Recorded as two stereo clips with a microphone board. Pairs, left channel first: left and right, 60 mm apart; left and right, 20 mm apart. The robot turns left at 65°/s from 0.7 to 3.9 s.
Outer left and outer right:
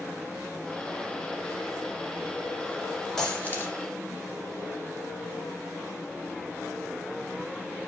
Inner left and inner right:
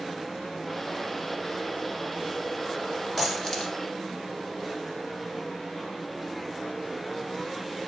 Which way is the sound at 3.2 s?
10° left (ahead or behind).